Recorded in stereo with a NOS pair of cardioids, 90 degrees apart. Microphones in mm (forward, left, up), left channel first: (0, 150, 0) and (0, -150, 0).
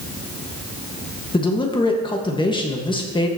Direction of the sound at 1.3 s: 15° left.